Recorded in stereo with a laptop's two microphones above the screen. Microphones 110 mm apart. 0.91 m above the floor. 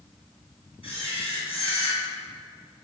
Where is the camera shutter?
60° left (ahead or behind), 3 m.